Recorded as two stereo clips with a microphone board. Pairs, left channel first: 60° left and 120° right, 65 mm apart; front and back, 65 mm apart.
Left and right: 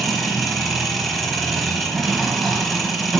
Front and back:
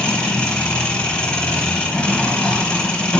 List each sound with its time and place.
0.0 s an engine running: 25° right, 1.2 m